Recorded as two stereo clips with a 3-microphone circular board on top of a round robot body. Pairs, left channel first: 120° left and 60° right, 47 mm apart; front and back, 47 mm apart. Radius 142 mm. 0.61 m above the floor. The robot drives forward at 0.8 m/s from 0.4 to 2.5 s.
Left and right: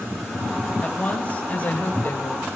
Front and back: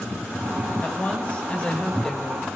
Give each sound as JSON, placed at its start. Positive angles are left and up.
{"t": 0.8, "sound": "a woman speaking", "azimuth_deg": 55, "distance_m": 3.0}